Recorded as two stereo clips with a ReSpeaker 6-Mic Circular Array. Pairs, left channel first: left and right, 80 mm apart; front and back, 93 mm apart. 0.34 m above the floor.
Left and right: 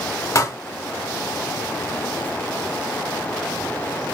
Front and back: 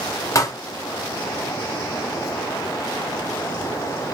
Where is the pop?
50° left, 0.8 m.